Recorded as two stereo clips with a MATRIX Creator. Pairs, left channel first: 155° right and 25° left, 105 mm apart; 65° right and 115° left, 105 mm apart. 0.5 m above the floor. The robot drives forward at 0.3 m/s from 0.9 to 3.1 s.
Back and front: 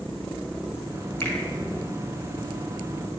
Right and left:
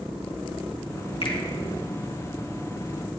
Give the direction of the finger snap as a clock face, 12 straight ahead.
3 o'clock.